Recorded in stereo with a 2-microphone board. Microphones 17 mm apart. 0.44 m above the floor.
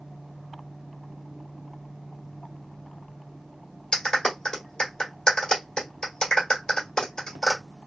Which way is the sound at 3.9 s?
40° left (ahead or behind).